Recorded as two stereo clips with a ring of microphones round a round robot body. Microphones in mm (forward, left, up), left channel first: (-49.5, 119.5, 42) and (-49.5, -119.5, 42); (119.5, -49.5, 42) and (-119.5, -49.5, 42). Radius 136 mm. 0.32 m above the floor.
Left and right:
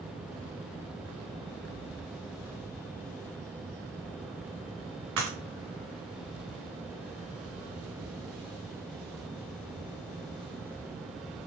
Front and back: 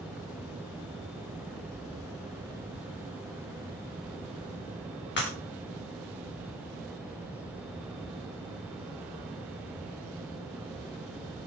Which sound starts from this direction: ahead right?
Breaking glass, at 5.2 s.